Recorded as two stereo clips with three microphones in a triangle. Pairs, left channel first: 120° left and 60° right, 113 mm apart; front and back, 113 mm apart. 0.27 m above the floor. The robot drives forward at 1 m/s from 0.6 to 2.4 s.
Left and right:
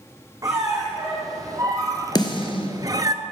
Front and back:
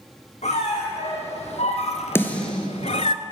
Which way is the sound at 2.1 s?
70° left.